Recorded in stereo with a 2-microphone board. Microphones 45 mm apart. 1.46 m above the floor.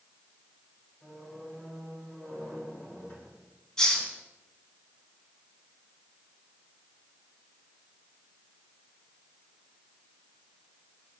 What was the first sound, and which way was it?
A squeak, 40° left (ahead or behind).